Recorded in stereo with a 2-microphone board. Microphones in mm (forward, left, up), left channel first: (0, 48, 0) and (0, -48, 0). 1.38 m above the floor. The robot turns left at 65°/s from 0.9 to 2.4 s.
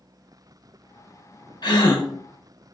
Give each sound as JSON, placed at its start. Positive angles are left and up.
{"t": 1.6, "sound": "a gasp", "side_deg": 50, "distance_m": 0.9}